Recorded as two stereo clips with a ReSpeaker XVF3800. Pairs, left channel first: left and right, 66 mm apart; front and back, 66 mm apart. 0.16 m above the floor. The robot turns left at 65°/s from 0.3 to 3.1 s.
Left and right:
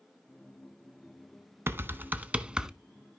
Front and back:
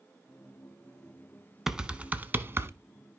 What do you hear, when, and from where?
1.7 s typing on a keyboard: 100° right, 0.8 m; by 2.7 s 165° right, 0.8 m